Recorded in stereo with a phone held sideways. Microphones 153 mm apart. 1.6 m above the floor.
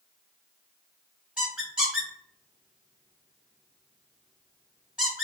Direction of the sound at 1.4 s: 5° right (ahead or behind).